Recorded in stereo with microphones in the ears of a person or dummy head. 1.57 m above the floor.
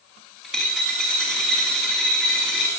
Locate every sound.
0.4 s a dropped coin: 5° left (ahead or behind), 2 m